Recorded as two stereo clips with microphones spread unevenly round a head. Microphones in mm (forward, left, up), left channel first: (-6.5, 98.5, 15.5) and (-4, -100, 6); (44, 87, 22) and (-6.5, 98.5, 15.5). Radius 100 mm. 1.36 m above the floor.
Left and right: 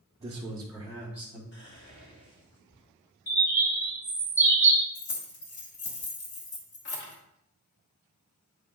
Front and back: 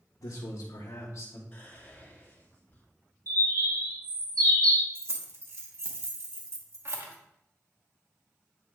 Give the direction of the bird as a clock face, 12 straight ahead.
6 o'clock.